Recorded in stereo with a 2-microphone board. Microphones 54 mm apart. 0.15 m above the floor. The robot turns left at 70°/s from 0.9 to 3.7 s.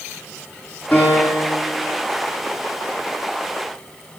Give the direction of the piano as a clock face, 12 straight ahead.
7 o'clock.